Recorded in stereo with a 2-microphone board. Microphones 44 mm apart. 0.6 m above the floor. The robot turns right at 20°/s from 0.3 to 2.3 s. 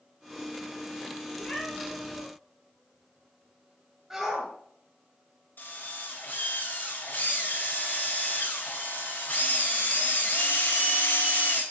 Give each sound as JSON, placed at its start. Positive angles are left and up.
{"t": 1.3, "sound": "a cat meowing", "side_deg": 15, "distance_m": 2.5}
{"t": 4.1, "sound": "a shout", "side_deg": -15, "distance_m": 3.0}
{"t": 5.6, "sound": "a drill", "side_deg": 50, "distance_m": 2.5}